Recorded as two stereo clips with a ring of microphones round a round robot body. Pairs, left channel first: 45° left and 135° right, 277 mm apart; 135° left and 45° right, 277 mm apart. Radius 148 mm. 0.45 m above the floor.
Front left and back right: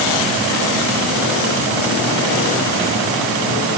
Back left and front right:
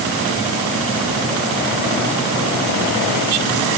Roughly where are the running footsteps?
No running footsteps in this recording.